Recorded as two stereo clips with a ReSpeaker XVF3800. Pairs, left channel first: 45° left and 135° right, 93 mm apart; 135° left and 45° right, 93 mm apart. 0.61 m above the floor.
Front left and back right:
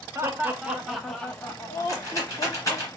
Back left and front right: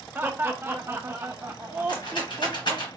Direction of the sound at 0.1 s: 105° right.